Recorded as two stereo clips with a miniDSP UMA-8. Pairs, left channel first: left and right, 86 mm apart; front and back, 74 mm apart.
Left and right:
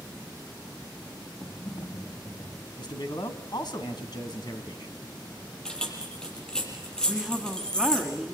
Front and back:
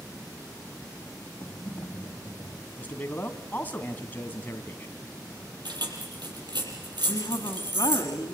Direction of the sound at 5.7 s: 170° left.